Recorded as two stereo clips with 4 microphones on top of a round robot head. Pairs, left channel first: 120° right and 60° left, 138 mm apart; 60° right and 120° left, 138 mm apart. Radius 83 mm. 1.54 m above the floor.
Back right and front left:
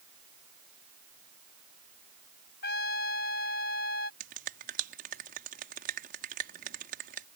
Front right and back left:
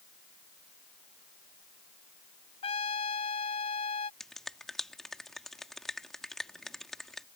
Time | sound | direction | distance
2.6 | a trumpet | 110° right | ?
4.2 | a finger snap | 30° left | ?